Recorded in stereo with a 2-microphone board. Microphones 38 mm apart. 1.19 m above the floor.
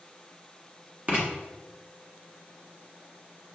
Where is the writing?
30° right (ahead or behind), 1.1 m.